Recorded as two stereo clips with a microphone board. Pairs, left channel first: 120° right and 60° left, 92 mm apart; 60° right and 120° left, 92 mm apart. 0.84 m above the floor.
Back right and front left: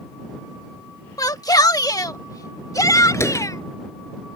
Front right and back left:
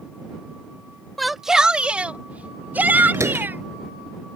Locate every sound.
1.2 s a shout: 145° right; by 3.6 s 170° right
3.1 s a door slam: 175° left